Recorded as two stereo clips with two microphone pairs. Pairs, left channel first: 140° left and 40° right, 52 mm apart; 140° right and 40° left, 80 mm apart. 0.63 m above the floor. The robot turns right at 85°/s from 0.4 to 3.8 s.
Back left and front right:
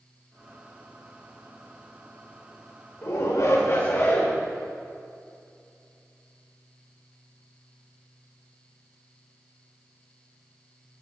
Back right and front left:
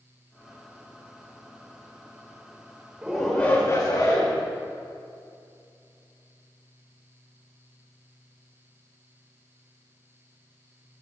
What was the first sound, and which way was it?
A shout, 110° left.